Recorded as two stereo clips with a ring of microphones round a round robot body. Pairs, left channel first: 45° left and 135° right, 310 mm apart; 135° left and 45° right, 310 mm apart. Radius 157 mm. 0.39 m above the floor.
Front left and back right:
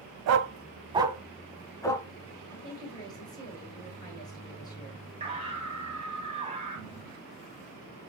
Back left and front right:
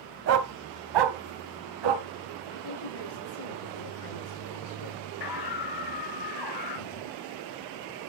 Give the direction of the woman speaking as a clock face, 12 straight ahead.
8 o'clock.